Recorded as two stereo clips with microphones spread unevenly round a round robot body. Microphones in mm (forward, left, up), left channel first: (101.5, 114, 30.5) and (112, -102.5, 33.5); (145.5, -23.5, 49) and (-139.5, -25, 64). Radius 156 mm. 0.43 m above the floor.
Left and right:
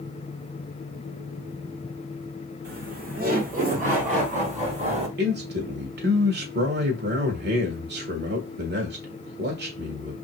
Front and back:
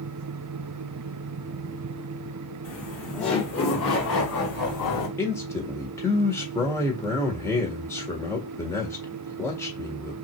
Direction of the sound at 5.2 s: 75° right.